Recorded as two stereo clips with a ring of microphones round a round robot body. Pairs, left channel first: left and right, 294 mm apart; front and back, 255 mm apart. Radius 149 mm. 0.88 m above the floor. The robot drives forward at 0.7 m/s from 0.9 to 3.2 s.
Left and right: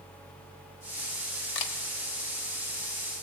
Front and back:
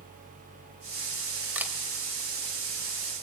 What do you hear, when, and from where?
1.6 s a camera shutter: 95° left, 3 m; by 1.7 s 100° left, 3 m